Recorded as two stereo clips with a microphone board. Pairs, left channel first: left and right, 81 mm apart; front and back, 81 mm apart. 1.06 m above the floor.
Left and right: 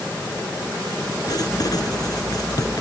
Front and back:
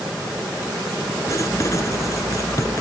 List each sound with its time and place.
1.3 s writing: 50° left